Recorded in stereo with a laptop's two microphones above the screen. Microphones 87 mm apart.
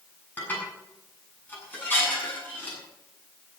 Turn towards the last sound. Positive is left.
turn(degrees=20)  # may be behind; listen again after turning